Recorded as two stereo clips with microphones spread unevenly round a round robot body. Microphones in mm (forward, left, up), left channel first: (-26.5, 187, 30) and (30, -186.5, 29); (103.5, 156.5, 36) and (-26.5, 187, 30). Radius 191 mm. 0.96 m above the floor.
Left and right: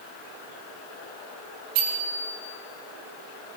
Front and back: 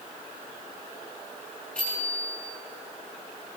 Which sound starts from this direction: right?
A bicycle bell, at 1.8 s.